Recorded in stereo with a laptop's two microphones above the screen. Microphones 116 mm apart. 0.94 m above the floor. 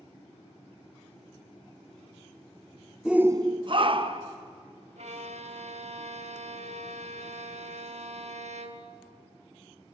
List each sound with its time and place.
3.0 s a shout: 5° right (ahead or behind), 0.7 m; by 4.4 s 45° right (ahead or behind), 1.4 m
5.0 s a violin: 70° right (ahead or behind), 1.4 m